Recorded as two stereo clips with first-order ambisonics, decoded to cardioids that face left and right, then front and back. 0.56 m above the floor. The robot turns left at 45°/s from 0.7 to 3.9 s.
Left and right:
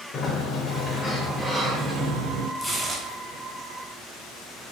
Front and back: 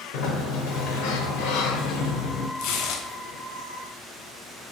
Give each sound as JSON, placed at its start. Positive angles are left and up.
{"t": 0.1, "sound": "a sliding door", "azimuth_deg": 25, "distance_m": 0.6}
{"t": 2.6, "sound": "tearing paper", "azimuth_deg": 0, "distance_m": 0.6}